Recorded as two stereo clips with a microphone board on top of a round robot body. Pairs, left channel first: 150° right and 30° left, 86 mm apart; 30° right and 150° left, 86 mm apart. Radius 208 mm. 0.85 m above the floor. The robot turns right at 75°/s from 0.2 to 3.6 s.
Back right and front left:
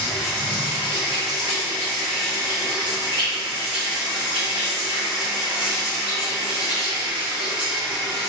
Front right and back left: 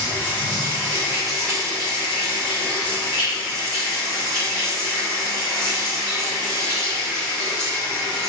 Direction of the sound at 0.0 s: 155° left.